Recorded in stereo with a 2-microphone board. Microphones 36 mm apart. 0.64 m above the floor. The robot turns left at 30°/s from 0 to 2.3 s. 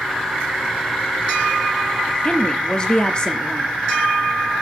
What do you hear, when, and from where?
2.2 s a woman speaking: 20° left (ahead or behind), 0.8 m